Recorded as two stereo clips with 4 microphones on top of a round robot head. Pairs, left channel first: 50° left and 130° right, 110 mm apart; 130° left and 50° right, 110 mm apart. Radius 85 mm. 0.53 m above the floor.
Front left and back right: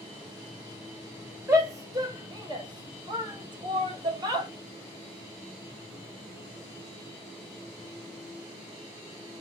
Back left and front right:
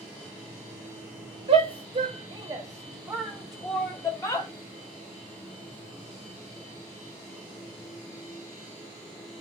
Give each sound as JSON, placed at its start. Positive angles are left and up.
{"t": 1.5, "sound": "a shout", "azimuth_deg": -75, "distance_m": 1.6}